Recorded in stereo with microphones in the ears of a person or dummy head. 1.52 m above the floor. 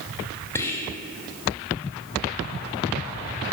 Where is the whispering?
10° left (ahead or behind), 0.7 m.